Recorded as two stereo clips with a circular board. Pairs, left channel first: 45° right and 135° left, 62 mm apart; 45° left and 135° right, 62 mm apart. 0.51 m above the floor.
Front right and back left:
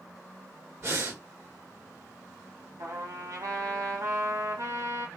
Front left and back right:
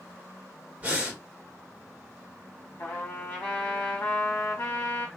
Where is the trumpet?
110° left, 1.3 m.